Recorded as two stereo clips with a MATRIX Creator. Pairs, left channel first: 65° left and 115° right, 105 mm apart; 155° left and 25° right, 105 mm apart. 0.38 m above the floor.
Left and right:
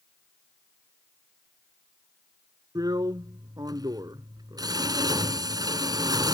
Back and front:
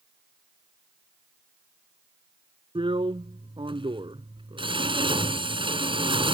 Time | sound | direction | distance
2.8 | a drill | 60° right | ?